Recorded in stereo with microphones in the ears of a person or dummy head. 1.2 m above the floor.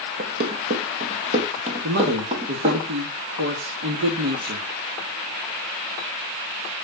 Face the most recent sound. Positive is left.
turn(degrees=-65)  # may be behind; listen again after turning